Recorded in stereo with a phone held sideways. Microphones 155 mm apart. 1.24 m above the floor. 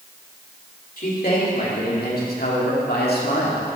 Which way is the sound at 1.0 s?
65° left (ahead or behind).